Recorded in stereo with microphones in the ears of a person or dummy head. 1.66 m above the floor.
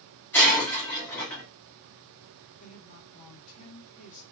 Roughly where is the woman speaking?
Left.